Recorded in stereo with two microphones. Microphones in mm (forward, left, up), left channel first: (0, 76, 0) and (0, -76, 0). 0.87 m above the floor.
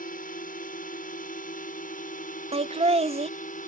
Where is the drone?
65° left (ahead or behind); by 3.7 s 60° left (ahead or behind).